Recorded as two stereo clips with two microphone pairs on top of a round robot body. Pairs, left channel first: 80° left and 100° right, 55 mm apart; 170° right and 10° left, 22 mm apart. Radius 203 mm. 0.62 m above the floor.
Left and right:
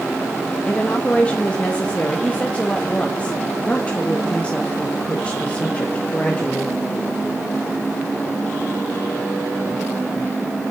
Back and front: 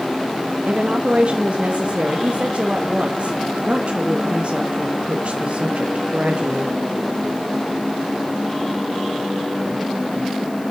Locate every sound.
0.7 s a woman speaking: 15° left, 1.6 m